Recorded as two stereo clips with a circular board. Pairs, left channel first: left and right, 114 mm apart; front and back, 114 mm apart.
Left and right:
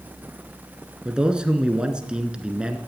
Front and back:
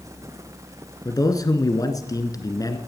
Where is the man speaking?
15° right, 1.4 m.